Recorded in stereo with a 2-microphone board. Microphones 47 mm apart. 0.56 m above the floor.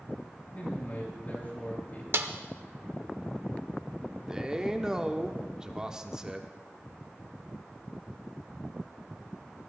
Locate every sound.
0.6 s a man speaking: 35° left (ahead or behind), 7.5 m
2.1 s a snare drum: 60° right (ahead or behind), 0.8 m
4.3 s a man speaking: 15° right (ahead or behind), 1.0 m